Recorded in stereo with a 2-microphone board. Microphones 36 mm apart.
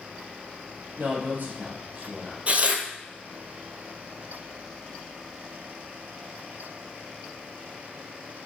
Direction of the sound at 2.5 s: 40° right (ahead or behind).